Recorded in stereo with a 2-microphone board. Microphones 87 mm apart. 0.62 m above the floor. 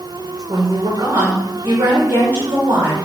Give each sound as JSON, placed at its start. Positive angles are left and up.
{"t": 0.5, "sound": "a woman speaking", "side_deg": -65, "distance_m": 1.9}